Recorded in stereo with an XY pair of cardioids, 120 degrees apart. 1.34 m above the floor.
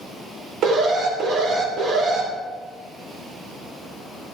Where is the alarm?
65° right, 2.5 m.